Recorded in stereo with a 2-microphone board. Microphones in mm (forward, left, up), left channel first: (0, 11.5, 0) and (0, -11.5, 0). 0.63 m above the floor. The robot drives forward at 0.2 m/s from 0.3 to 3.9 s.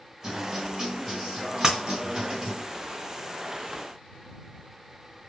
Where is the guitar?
25° right (ahead or behind), 1.7 m; by 2.6 s 35° right (ahead or behind), 1.3 m.